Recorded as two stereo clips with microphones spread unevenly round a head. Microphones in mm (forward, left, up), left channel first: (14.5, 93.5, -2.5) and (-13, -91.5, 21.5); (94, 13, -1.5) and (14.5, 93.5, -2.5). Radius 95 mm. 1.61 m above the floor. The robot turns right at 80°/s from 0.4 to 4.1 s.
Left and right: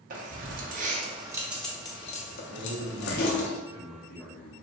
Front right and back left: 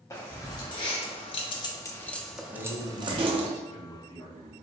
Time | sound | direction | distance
0.1 | keys jangling | 110° right | 0.8 m
2.5 | a man speaking | 130° right | 1.5 m